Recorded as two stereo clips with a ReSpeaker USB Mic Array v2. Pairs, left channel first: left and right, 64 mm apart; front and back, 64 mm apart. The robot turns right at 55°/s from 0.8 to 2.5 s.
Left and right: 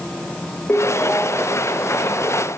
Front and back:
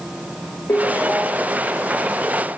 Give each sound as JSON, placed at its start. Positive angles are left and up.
{"t": 0.7, "sound": "a ringtone", "azimuth_deg": 35, "distance_m": 1.3}